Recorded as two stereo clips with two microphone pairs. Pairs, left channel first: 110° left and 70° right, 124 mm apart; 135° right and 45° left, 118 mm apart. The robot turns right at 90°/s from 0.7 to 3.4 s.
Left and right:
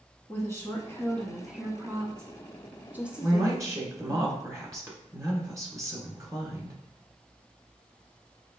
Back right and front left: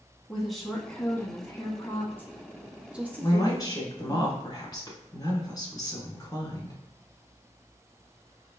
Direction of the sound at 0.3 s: 135° left.